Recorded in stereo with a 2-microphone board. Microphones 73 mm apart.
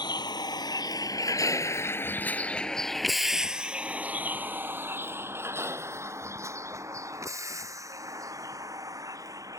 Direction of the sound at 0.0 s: 75° left (ahead or behind).